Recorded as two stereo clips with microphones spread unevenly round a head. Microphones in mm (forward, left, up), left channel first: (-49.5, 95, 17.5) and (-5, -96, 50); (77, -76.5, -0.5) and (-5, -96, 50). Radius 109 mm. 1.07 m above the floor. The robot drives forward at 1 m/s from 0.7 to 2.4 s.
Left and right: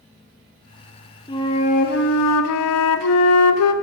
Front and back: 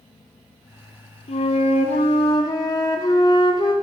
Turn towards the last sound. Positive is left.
turn(degrees=100)